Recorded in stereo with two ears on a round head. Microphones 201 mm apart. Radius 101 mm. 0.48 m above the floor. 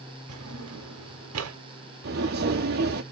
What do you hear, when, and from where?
0.3 s a drawer: 70° right (ahead or behind), 0.8 m
2.0 s footsteps: 45° right (ahead or behind), 0.7 m